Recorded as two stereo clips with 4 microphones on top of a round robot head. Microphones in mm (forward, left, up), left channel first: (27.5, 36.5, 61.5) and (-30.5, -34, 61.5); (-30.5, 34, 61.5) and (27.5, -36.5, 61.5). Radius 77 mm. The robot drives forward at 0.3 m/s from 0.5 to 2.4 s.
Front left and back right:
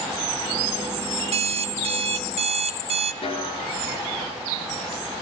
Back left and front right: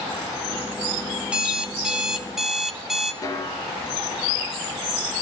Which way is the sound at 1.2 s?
130° right.